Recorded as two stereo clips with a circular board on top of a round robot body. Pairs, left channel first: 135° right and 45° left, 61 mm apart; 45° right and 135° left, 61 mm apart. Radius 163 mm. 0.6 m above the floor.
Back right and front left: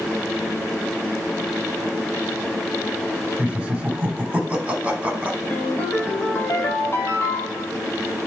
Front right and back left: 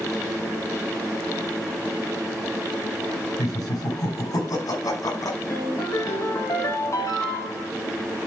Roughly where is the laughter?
Ahead right.